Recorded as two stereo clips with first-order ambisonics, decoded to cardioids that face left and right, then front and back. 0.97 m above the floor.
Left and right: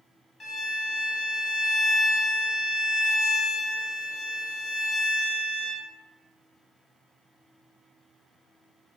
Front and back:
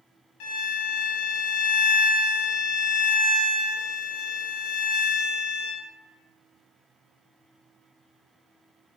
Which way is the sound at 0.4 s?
15° left.